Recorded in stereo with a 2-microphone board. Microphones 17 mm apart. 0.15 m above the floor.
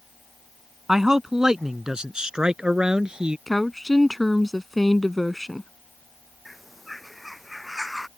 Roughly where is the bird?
Centre.